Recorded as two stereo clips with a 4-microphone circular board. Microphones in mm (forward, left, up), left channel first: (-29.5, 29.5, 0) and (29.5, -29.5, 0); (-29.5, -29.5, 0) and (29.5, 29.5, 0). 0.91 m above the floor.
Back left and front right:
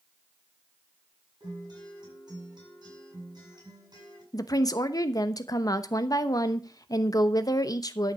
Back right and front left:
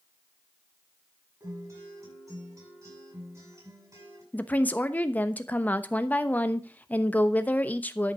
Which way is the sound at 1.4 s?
5° right.